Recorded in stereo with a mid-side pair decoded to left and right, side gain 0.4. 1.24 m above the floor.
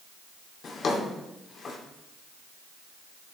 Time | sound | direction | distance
0.6 | a drawer | 55° left | 2.5 m